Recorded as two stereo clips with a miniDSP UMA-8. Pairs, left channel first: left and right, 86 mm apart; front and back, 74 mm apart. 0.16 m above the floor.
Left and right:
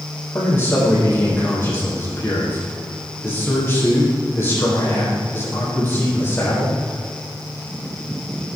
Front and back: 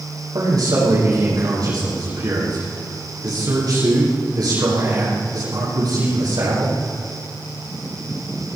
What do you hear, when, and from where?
0.3 s a man speaking: 150° left, 7 m